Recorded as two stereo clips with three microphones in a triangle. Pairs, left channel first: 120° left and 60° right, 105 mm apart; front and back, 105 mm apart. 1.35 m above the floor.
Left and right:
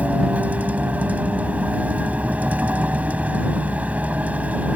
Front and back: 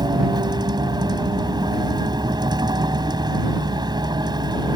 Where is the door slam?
No door slam in this recording.